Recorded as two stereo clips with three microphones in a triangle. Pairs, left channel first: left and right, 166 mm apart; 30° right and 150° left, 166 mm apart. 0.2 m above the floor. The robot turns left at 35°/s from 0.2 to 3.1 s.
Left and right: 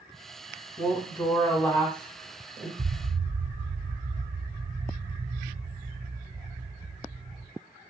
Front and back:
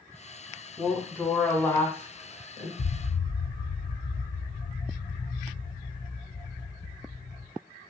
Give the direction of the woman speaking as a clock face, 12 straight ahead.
10 o'clock.